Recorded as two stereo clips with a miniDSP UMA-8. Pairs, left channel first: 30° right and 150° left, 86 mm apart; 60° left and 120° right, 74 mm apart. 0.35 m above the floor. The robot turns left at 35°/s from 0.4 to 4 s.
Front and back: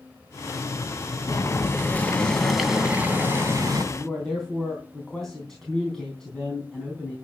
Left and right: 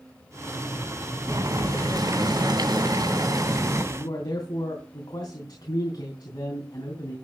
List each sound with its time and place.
1.3 s boiling: 75° right, 2 m; by 3.8 s 165° right, 2 m
3.9 s a man speaking: 55° left, 3.5 m